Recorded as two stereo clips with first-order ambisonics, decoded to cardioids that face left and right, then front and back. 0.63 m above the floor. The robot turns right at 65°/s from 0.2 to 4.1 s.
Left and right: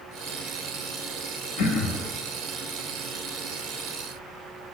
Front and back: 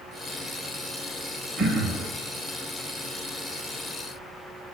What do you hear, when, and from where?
1.6 s throat clearing: 105° left, 0.8 m; by 2.1 s 140° left, 0.8 m